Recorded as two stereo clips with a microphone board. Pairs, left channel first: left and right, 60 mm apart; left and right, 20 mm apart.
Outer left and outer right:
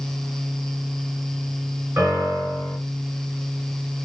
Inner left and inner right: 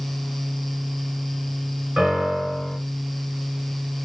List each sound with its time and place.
2.0 s a piano: 30° right (ahead or behind), 1.9 m